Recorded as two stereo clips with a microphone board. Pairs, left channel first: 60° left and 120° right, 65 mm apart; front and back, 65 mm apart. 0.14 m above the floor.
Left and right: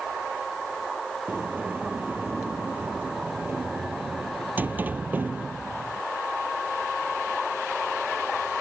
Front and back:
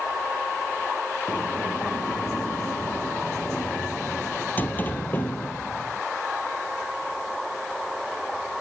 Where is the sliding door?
60° right.